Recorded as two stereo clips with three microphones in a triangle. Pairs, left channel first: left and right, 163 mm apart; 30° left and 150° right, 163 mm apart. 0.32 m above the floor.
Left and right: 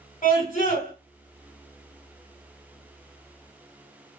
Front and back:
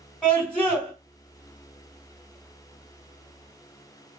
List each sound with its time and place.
0.2 s a scream: 120° left, 2 m